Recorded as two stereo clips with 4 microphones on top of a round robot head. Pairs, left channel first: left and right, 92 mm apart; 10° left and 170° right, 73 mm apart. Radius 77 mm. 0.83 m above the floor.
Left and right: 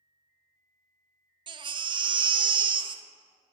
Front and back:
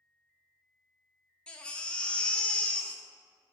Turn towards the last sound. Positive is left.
turn(degrees=-65)